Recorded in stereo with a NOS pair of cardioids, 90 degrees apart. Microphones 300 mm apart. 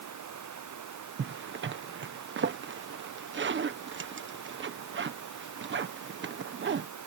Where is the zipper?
35° right.